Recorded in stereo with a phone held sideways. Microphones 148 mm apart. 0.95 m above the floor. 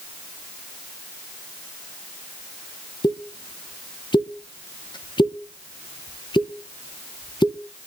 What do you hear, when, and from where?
3.0 s a pop: 30° left (ahead or behind), 1.0 m